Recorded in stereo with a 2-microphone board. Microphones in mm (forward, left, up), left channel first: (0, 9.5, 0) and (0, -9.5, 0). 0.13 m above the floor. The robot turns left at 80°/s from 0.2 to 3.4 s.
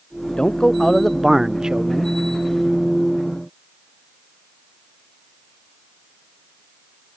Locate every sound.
0.4 s a man speaking: 55° left; by 2.1 s 85° right